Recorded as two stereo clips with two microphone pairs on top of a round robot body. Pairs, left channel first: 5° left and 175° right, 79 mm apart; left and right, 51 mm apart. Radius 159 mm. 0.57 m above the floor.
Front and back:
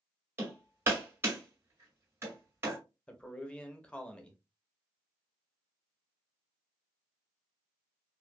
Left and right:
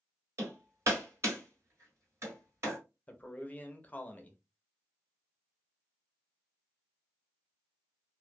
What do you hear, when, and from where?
0.4 s hammering: 115° right, 1.7 m
3.1 s a man speaking: 90° left, 0.9 m